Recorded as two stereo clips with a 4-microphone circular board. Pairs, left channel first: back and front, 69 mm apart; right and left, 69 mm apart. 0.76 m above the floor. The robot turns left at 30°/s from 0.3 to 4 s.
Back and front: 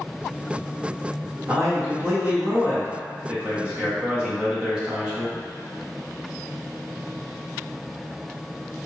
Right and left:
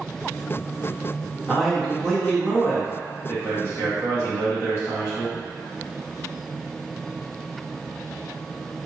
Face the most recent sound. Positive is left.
turn(degrees=-70)